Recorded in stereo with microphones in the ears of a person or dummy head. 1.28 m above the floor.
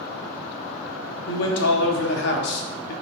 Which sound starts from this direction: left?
A man speaking, at 1.3 s.